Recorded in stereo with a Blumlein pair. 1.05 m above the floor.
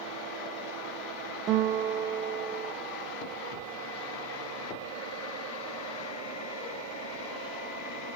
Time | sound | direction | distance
1.5 | a guitar | 30° right | 1.7 m